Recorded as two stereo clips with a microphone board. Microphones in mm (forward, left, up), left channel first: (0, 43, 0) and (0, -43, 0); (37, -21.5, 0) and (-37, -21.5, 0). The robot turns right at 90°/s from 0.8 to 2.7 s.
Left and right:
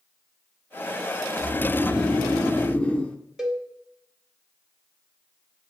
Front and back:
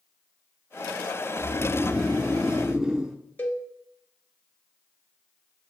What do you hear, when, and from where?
1.4 s snoring: straight ahead, 0.6 m; by 3.2 s 120° left, 0.6 m
3.4 s a cowbell: 15° right, 0.8 m